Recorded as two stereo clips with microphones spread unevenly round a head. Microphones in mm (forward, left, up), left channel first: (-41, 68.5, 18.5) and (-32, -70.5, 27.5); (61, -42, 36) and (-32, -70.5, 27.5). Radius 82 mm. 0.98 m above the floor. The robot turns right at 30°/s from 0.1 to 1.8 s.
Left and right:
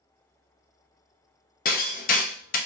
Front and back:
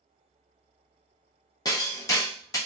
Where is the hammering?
75° left, 0.5 m; by 2.6 s 80° left, 0.5 m.